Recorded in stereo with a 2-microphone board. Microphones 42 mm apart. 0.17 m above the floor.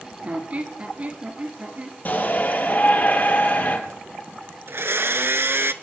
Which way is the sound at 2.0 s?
45° left (ahead or behind).